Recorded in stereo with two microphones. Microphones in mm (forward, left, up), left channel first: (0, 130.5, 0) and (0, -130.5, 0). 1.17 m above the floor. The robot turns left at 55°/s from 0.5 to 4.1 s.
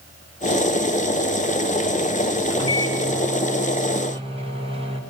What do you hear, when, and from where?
2.5 s a microwave: 70° right, 5 m; by 5.0 s 160° right, 5 m